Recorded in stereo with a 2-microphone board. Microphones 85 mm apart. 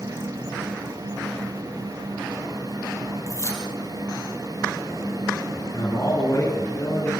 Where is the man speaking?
35° left (ahead or behind), 7.5 m.